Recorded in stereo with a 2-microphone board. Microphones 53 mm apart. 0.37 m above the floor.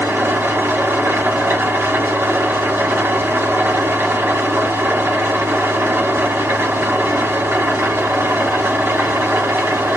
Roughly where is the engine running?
Right.